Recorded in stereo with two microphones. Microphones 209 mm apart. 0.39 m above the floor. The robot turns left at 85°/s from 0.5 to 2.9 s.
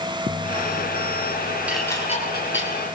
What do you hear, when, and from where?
1.7 s dishes clattering: 5° right (ahead or behind), 5 m; by 2.7 s 80° left, 5 m